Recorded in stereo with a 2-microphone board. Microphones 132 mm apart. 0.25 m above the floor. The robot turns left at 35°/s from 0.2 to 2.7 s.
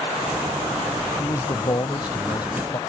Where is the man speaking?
125° left; by 2.8 s 70° left.